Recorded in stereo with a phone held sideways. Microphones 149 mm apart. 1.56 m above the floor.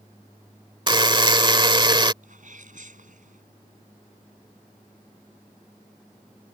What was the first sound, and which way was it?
A buzzer, 30° right (ahead or behind).